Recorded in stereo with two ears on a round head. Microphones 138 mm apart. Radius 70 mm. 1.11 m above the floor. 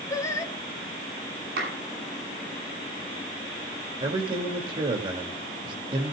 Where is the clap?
70° right (ahead or behind), 7.5 m.